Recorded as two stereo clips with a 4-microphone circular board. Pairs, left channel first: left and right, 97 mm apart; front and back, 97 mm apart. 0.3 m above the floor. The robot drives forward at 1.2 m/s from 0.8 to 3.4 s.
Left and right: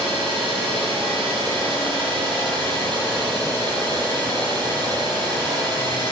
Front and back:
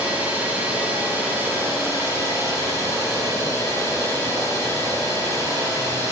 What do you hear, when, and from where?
0.0 s an engine running: 105° right, 6 m; by 6.1 s 130° right, 7.5 m